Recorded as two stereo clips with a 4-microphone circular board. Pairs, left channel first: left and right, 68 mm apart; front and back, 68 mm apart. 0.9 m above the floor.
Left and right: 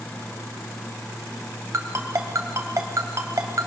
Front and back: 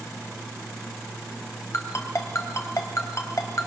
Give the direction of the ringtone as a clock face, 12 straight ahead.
2 o'clock.